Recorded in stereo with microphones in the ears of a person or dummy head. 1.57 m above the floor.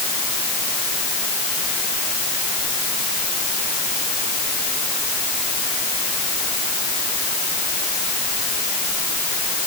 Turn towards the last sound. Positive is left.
No sound to turn to.